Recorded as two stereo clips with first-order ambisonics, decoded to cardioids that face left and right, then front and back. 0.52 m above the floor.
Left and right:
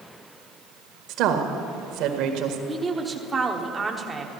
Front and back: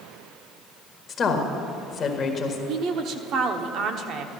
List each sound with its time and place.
1.1 s a woman speaking: 60° right, 1.6 m
2.7 s a woman speaking: 165° right, 1.1 m